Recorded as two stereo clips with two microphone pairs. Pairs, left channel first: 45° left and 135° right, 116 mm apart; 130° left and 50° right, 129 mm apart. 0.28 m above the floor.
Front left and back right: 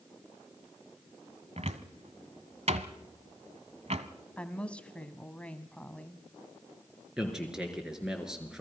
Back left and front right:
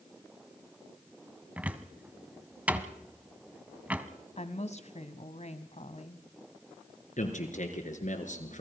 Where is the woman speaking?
120° left, 1.7 m.